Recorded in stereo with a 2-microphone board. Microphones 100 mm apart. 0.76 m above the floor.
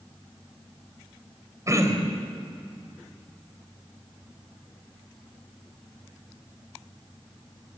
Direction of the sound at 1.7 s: 35° right (ahead or behind).